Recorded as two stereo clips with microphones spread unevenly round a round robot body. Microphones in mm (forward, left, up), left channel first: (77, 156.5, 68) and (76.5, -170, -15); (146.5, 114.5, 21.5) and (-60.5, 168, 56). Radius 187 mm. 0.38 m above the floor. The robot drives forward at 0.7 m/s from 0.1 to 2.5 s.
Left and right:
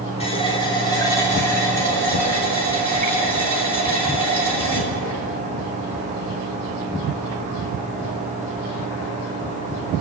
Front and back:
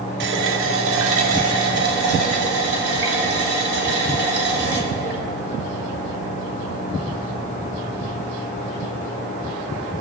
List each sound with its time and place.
0.2 s a running tap: 170° left, 0.7 m; by 5.2 s straight behind, 2 m